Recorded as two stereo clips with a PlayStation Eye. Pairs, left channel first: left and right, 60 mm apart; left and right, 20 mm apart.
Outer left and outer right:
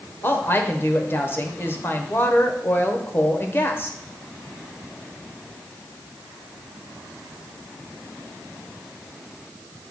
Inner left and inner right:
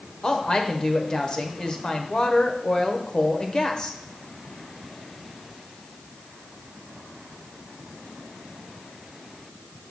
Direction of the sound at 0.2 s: 35° left (ahead or behind).